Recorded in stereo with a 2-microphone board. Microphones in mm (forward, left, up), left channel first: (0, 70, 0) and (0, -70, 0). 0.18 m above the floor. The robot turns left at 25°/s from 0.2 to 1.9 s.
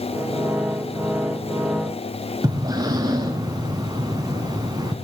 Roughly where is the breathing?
Right.